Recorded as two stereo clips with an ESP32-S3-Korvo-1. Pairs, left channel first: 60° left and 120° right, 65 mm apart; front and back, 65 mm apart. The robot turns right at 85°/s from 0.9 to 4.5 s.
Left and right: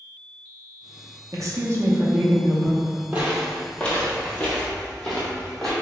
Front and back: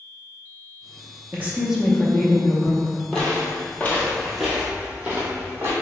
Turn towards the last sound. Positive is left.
turn(degrees=140)